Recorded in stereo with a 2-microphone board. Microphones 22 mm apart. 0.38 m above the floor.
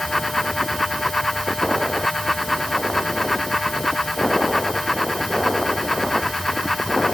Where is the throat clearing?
I don't hear throat clearing.